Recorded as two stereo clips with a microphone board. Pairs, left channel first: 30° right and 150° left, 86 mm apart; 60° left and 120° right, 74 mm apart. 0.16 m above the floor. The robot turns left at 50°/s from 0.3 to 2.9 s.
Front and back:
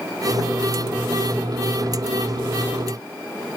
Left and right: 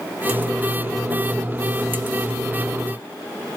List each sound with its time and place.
Only background noise.